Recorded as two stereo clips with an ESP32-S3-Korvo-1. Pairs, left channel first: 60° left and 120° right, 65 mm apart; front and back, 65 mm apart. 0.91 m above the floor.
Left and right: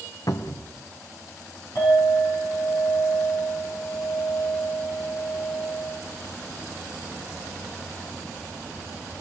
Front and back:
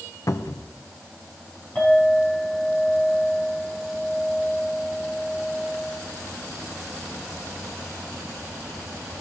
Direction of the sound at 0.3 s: 35° left.